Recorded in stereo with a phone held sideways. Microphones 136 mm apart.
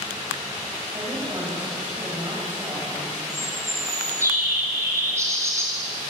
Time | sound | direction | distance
0.9 | a woman speaking | 30° right (ahead or behind) | 5.5 m
3.3 | a bird | 20° right (ahead or behind) | 4 m